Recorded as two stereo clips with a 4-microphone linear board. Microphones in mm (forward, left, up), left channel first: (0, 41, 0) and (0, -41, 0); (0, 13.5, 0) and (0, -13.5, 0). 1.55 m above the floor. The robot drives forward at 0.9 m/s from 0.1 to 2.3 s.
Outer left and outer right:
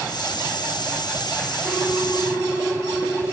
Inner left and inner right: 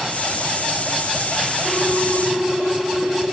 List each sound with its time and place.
1.6 s a ringtone: 45° right (ahead or behind), 6.5 m; by 3.2 s 40° right (ahead or behind), 7 m